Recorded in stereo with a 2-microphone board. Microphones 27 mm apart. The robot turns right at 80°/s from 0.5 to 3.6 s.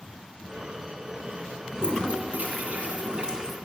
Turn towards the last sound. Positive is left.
turn(degrees=-10)